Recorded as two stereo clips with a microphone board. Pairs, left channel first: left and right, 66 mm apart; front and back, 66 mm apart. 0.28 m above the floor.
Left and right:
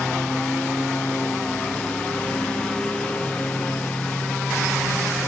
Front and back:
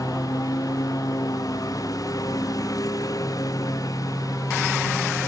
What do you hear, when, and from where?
0.0 s a lawn mower: 15° left; by 5.3 s 20° left